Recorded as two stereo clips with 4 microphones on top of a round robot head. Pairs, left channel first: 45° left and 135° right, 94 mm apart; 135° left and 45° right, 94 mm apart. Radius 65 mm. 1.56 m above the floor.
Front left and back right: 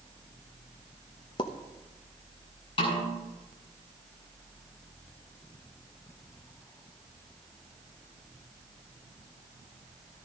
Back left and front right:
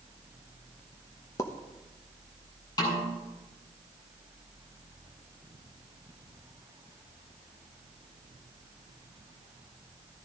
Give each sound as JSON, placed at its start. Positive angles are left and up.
{"t": 1.4, "sound": "a pop", "azimuth_deg": 80, "distance_m": 0.9}
{"t": 2.8, "sound": "a snare drum", "azimuth_deg": 85, "distance_m": 6.0}